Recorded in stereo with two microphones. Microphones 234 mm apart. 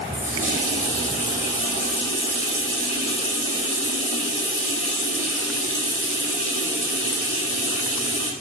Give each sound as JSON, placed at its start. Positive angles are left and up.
{"t": 0.1, "sound": "a running tap", "side_deg": 30, "distance_m": 4.5}